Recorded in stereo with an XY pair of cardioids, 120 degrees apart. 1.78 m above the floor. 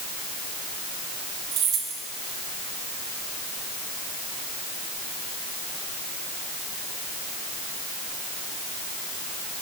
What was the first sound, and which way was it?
Keys jangling, 65° right.